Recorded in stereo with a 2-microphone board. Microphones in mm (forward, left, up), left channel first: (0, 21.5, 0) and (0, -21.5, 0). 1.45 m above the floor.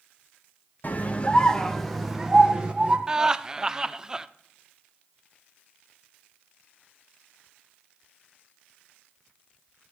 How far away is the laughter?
About 0.6 m.